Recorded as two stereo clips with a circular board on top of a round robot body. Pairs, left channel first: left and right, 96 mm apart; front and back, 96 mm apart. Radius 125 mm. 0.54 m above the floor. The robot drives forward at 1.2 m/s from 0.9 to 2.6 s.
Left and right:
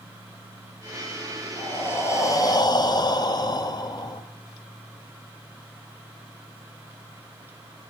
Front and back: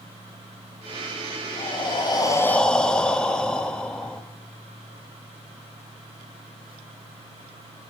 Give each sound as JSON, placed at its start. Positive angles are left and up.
{"t": 1.6, "sound": "breathing", "azimuth_deg": 20, "distance_m": 1.5}